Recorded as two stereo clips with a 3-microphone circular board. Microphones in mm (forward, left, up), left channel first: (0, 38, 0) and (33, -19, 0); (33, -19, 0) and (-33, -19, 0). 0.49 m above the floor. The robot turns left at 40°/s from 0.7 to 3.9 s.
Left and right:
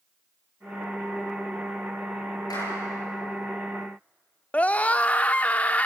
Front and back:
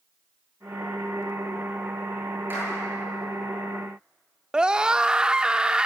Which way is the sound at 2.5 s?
125° left.